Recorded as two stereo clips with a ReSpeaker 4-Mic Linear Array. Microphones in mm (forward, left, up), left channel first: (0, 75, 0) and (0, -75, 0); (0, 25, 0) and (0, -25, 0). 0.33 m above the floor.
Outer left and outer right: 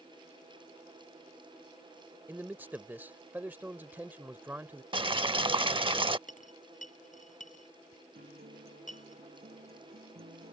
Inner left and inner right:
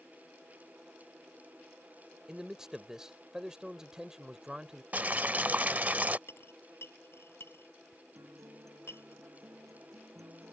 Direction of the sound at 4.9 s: 35° right (ahead or behind).